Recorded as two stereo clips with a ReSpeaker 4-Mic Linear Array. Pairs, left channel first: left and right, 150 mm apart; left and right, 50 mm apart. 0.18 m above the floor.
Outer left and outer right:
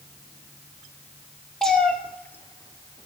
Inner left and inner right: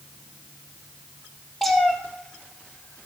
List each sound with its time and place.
1.6 s a cat meowing: 5° left (ahead or behind), 1.6 m; by 3.1 s 35° left (ahead or behind), 0.9 m